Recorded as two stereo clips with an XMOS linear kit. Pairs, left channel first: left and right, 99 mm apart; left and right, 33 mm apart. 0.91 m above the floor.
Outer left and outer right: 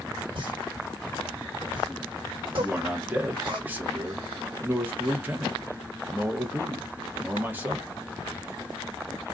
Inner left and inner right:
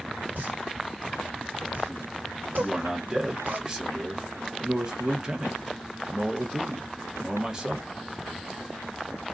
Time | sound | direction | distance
0.3 | a pop | 60° right (ahead or behind) | 1.6 m
2.6 | a man speaking | 20° right (ahead or behind) | 0.9 m